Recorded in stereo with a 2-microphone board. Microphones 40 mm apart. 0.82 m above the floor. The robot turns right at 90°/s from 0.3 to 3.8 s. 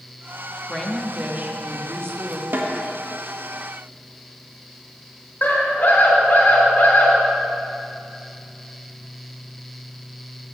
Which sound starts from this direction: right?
A snare drum, at 2.5 s.